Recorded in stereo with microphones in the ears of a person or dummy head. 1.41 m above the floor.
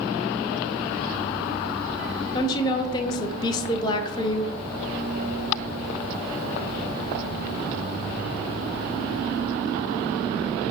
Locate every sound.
2.3 s a woman speaking: 25° left (ahead or behind), 0.7 m